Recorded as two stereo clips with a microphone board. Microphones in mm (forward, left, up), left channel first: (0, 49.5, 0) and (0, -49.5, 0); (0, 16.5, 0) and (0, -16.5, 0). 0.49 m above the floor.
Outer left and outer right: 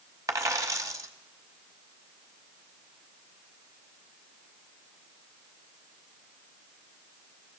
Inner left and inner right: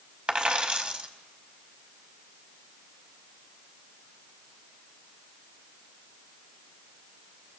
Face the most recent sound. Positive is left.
turn(degrees=-35)  # may be behind; listen again after turning